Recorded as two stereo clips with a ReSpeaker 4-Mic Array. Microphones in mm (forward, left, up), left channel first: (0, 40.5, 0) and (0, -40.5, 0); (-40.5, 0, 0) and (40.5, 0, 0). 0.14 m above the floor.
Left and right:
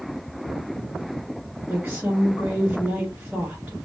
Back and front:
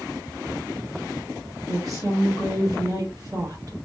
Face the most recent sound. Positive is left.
turn(degrees=-10)